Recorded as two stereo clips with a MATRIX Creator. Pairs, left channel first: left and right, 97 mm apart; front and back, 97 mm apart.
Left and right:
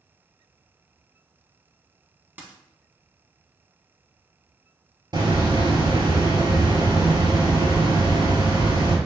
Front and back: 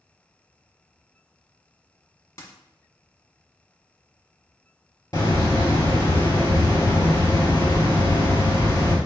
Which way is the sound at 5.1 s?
50° right.